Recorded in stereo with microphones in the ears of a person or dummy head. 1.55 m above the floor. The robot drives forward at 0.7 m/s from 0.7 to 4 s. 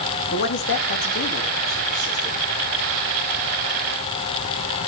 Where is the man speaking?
55° left (ahead or behind), 1.9 m; by 2.4 s 35° left (ahead or behind), 2.5 m.